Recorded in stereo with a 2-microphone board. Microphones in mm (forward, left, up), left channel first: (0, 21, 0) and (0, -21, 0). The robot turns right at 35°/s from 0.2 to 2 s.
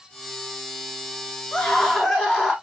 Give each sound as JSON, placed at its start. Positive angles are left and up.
{"t": 1.5, "sound": "a scream", "side_deg": 30, "distance_m": 6.5}